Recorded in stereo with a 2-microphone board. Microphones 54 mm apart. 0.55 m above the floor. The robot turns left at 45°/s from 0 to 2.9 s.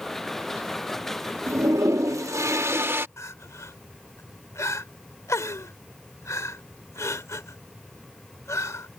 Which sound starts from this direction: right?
A toilet flushing, at 1.5 s.